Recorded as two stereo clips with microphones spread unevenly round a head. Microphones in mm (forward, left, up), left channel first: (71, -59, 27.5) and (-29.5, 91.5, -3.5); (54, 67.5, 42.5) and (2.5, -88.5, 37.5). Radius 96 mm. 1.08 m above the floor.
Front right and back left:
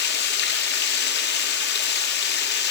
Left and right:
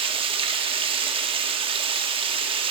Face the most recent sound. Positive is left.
turn(degrees=-50)